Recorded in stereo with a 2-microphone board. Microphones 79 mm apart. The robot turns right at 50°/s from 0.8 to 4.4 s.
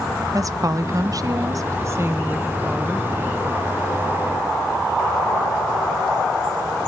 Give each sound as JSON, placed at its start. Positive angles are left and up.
{"t": 0.3, "sound": "a woman speaking", "azimuth_deg": -110, "distance_m": 1.0}